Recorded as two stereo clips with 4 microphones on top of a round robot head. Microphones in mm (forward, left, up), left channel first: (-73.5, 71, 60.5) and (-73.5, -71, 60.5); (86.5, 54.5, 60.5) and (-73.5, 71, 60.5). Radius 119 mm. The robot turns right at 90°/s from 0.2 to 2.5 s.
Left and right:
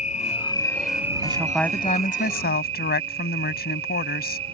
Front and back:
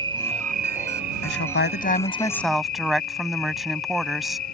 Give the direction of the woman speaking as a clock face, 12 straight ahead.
1 o'clock.